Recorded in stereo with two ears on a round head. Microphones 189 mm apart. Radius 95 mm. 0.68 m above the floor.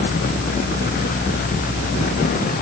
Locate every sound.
Only background noise.